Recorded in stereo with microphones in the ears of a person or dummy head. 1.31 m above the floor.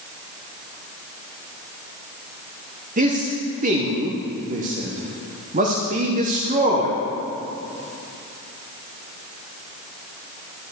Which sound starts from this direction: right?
A man speaking, at 3.0 s.